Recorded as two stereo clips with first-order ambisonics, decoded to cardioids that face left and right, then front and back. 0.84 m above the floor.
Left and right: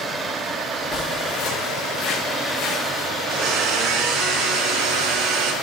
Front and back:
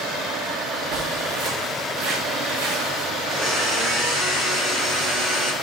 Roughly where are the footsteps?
Behind.